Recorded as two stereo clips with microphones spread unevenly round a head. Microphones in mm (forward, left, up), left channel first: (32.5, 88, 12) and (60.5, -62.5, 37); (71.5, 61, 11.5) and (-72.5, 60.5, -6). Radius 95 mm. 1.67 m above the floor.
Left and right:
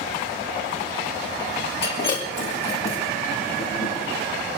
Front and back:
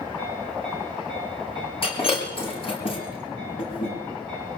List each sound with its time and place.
1.8 s breaking glass: 50° left, 7.5 m